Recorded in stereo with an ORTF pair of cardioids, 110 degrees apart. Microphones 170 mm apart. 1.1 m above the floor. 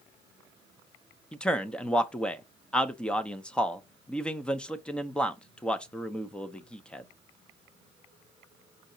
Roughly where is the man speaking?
Ahead.